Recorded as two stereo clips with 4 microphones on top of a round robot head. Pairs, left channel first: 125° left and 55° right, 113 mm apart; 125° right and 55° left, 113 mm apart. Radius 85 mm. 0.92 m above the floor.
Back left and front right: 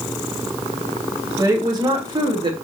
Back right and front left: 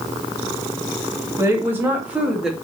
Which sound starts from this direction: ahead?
A woman speaking, at 1.4 s.